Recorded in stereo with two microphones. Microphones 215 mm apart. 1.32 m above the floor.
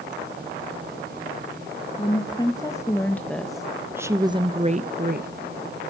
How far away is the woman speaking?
About 2 m.